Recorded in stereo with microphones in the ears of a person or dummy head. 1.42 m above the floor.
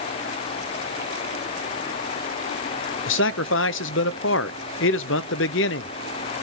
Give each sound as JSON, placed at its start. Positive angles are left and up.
{"t": 3.1, "sound": "a man speaking", "side_deg": 60, "distance_m": 0.7}